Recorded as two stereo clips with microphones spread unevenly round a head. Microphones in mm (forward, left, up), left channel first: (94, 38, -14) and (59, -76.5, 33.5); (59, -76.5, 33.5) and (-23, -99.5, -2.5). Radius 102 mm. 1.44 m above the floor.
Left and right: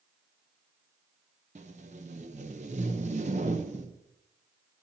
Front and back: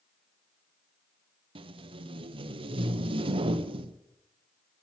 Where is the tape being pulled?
165° right, 0.7 m.